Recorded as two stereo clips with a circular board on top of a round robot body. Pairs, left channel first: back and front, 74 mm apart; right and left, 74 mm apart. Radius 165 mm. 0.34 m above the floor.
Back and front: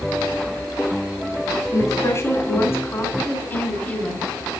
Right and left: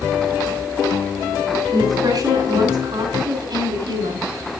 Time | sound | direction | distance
1.7 | a woman speaking | 130° left | 6 m